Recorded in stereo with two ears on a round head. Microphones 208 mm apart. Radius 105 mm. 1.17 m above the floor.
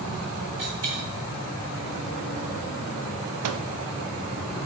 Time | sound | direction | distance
0.6 | a dropped coin | 70° right (ahead or behind) | 3 m
3.4 | a microwave | 70° right (ahead or behind) | 0.5 m